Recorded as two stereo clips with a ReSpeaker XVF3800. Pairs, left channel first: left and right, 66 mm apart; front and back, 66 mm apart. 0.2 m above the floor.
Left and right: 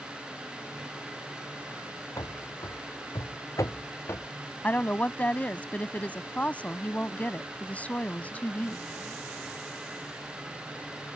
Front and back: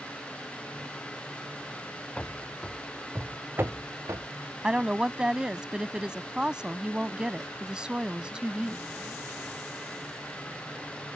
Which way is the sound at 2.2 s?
75° left.